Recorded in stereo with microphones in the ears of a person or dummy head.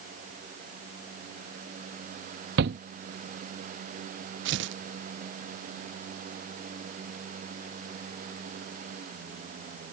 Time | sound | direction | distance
2.6 | a shout | 65° right (ahead or behind) | ?
4.5 | tearing paper | 65° right (ahead or behind) | ?